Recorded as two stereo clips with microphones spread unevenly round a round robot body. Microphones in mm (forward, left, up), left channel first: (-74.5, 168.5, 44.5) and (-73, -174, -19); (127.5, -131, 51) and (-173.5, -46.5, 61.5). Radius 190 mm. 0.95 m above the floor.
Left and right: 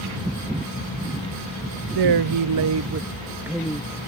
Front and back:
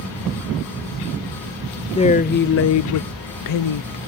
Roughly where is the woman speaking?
Right.